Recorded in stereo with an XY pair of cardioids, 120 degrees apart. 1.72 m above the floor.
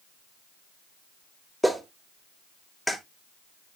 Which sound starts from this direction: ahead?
A clap, at 1.6 s.